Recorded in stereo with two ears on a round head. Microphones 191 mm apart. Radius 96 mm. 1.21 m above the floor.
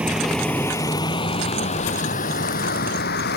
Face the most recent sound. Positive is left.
turn(degrees=50)  # may be behind; listen again after turning